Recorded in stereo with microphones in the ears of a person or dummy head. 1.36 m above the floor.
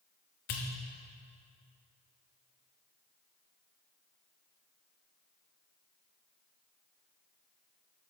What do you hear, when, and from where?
0.5 s a pop: 45° left (ahead or behind), 0.9 m